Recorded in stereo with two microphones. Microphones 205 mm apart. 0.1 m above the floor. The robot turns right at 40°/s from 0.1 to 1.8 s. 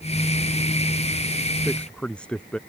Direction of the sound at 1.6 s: Centre (ahead or behind).